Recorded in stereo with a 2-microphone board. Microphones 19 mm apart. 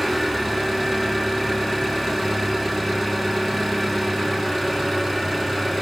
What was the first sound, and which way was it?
An engine running, 10° left (ahead or behind).